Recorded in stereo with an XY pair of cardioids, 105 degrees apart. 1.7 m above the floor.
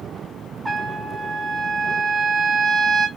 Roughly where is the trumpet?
Ahead.